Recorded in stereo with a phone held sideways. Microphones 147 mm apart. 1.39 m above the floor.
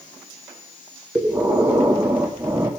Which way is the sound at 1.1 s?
20° right (ahead or behind).